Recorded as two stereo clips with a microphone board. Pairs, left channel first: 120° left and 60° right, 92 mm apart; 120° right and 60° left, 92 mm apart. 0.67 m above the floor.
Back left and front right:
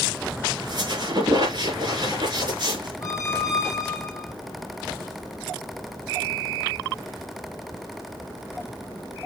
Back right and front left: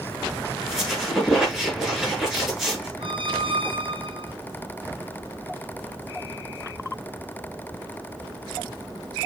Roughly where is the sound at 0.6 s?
Ahead right.